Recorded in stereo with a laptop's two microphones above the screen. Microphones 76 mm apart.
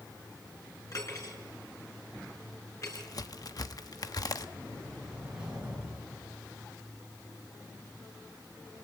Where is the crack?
55° left (ahead or behind), 0.8 m.